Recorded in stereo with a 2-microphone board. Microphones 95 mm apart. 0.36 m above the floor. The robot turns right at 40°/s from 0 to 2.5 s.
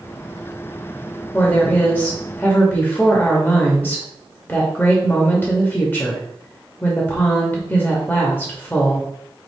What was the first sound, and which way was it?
A woman speaking, 15° left (ahead or behind).